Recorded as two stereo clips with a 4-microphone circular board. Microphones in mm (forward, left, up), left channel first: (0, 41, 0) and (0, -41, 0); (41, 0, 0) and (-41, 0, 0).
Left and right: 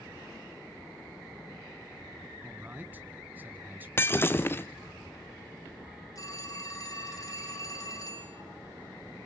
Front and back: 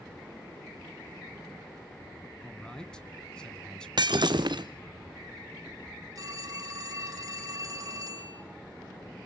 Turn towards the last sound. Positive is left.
turn(degrees=130)